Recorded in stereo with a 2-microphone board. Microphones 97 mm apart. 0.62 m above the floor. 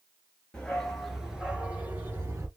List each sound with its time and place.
0.5 s a dog barking: 10° left (ahead or behind), 2.5 m; by 2.5 s 25° right (ahead or behind), 2.5 m